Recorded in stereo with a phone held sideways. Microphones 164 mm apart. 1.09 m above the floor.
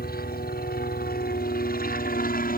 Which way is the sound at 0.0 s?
70° left (ahead or behind).